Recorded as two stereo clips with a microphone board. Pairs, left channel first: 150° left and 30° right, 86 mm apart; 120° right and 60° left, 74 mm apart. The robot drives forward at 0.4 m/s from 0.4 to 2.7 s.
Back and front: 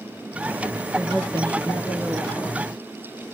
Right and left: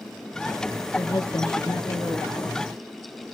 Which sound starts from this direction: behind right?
A woman speaking, at 0.9 s.